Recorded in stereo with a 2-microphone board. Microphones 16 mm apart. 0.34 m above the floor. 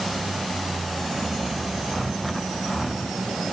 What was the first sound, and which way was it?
Only background noise.